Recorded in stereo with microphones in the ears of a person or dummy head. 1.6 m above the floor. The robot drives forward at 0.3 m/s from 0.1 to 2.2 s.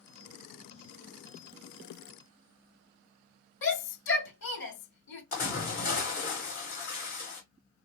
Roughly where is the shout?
Left.